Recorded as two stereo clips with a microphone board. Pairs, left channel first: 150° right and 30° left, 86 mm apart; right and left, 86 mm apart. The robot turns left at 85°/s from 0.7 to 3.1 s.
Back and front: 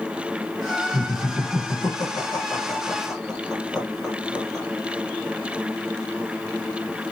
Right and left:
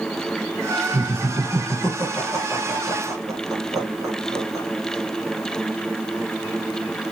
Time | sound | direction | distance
0.9 | laughter | 50° right | 1.6 m